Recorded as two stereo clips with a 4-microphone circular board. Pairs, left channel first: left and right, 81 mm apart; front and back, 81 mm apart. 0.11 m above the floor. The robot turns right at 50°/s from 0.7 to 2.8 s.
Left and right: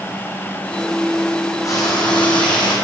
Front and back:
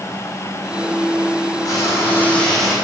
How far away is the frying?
About 2.5 m.